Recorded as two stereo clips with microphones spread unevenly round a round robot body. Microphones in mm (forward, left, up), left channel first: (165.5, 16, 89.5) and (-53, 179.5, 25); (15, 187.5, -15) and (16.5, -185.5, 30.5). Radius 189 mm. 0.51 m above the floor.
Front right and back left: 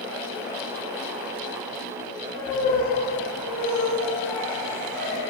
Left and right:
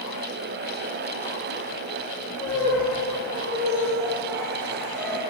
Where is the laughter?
160° right, 6 m; by 5.2 s 175° left, 4 m.